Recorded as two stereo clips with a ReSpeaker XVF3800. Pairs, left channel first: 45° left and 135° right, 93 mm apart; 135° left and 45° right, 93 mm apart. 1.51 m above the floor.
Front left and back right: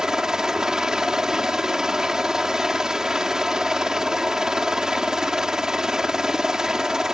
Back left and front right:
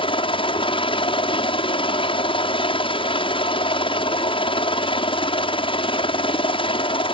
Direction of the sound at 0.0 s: 140° left.